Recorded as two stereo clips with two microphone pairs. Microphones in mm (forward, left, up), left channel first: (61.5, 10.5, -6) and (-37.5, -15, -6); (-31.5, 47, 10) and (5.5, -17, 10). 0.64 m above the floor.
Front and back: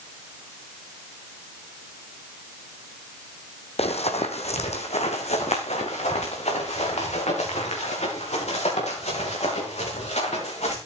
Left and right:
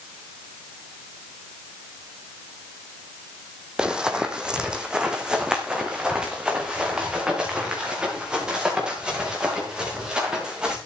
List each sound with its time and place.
3.8 s running footsteps: 20° left, 1.8 m